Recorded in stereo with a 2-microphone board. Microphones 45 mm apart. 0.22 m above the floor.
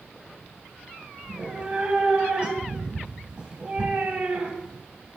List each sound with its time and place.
1.2 s a cat meowing: 25° right (ahead or behind), 0.7 m